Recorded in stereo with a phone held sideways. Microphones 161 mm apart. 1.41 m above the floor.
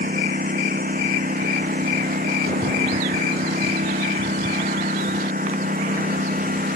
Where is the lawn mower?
60° right (ahead or behind).